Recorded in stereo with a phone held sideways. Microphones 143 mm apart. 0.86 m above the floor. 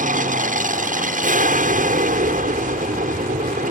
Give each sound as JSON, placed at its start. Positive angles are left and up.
{"t": 0.0, "sound": "an aircraft", "side_deg": -60}